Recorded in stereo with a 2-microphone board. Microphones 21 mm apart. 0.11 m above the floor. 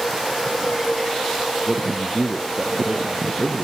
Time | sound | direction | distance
1.7 | a man speaking | 50° right (ahead or behind) | 2.5 m